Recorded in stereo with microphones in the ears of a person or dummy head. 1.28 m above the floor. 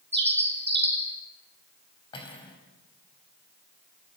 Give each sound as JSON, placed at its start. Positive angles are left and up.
{"t": 0.1, "sound": "a bird", "side_deg": -30, "distance_m": 3.0}
{"t": 2.1, "sound": "cutlery clinking", "side_deg": 25, "distance_m": 4.0}